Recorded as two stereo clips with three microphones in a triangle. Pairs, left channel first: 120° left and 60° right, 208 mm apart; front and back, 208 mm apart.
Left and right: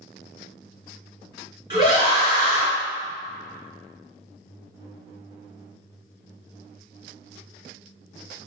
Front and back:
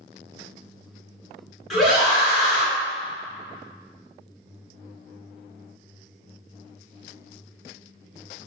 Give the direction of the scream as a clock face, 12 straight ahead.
3 o'clock.